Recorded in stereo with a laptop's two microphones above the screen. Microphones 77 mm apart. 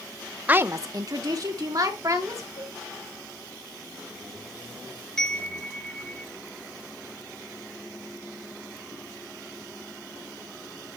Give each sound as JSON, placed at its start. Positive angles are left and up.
{"t": 0.5, "sound": "a woman speaking", "side_deg": -20, "distance_m": 0.7}
{"t": 2.6, "sound": "a cowbell", "side_deg": 85, "distance_m": 3.5}
{"t": 5.2, "sound": "a chime", "side_deg": 10, "distance_m": 3.5}